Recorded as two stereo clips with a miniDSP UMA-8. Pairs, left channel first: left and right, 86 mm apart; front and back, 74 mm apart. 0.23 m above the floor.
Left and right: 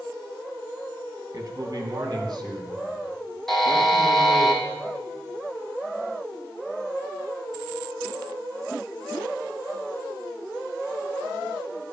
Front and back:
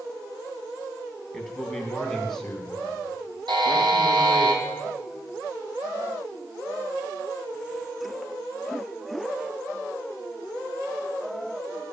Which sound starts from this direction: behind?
A buzzer, at 3.5 s.